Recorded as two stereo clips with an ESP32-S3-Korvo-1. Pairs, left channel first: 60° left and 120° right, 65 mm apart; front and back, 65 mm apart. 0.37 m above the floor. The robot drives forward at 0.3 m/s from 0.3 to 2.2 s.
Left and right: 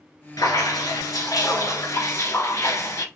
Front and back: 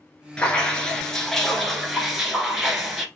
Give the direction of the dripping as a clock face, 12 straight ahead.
9 o'clock.